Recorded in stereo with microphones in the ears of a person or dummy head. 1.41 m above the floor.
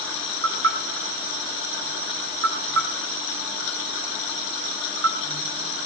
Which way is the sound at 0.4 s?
85° right.